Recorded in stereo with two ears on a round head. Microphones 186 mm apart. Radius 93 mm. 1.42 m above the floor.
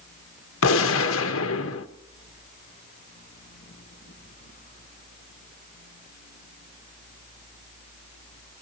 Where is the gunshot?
75° left (ahead or behind), 1.2 m.